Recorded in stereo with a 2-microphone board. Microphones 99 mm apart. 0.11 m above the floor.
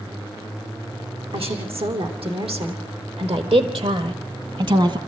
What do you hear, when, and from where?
1.3 s a woman speaking: 70° right (ahead or behind), 5 m; by 5.0 s 50° right (ahead or behind), 2 m